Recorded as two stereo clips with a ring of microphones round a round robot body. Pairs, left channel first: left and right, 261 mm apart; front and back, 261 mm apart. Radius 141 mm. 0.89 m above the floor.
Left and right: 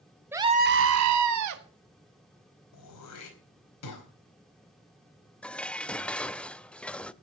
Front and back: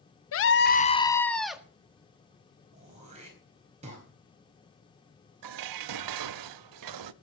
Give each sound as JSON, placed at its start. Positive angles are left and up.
{"t": 0.3, "sound": "a scream", "azimuth_deg": -10, "distance_m": 1.1}
{"t": 2.7, "sound": "throat clearing", "azimuth_deg": 110, "distance_m": 4.5}
{"t": 5.4, "sound": "dishes clattering", "azimuth_deg": 175, "distance_m": 0.6}